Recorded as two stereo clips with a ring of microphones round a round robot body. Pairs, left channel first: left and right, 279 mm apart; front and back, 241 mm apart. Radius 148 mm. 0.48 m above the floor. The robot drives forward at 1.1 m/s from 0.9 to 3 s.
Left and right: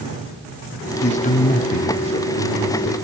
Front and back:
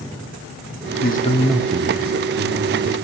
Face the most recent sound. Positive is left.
turn(degrees=170)